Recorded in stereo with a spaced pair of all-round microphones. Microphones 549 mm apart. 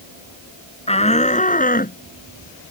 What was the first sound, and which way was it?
A shout, 10° left (ahead or behind).